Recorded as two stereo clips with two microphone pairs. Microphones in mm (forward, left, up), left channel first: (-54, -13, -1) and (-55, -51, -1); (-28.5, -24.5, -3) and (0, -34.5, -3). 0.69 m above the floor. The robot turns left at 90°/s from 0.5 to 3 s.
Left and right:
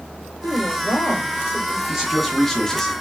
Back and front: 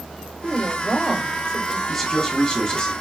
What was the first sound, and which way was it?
A woman speaking, 95° left.